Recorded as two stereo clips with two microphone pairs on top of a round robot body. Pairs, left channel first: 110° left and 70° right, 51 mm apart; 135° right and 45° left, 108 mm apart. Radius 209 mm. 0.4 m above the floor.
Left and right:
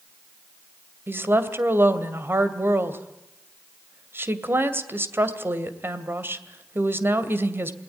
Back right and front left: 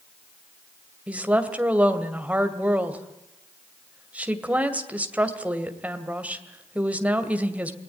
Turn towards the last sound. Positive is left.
turn(degrees=-30)